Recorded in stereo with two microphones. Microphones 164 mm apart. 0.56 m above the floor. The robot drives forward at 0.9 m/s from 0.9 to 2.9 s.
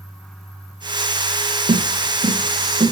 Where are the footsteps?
60° right (ahead or behind), 0.9 m; by 2.9 s 45° right (ahead or behind), 2 m.